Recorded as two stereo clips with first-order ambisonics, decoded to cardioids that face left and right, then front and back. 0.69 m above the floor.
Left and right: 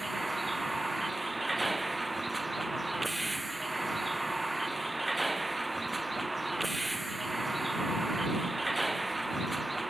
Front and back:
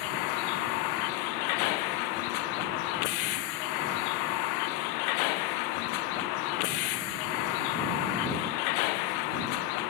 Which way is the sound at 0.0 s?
5° right.